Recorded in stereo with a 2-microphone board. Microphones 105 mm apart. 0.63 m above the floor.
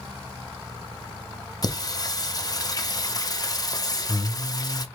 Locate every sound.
1.6 s singing: 40° left (ahead or behind), 0.5 m